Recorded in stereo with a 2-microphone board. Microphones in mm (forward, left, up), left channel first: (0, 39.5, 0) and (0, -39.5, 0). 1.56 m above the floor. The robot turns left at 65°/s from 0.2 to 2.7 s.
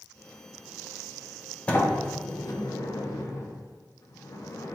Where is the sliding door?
15° left (ahead or behind), 0.5 m; by 4.8 s 45° left (ahead or behind), 0.5 m.